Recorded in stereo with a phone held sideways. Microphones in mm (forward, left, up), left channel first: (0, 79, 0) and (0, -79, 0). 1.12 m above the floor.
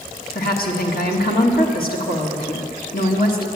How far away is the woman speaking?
About 1.4 m.